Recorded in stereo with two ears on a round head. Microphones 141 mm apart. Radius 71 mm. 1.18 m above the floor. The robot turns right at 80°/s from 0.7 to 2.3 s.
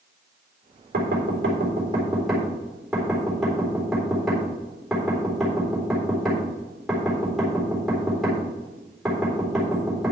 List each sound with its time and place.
0.9 s knocking: 70° right (ahead or behind), 4 m; by 10.1 s centre (ahead or behind), 4 m